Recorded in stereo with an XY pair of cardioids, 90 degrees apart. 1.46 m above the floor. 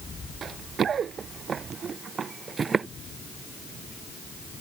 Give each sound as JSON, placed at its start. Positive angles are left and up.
{"t": 0.4, "sound": "running footsteps", "azimuth_deg": -60}